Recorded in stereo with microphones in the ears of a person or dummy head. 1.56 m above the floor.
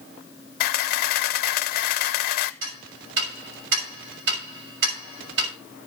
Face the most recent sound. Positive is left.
turn(degrees=-70)  # may be behind; listen again after turning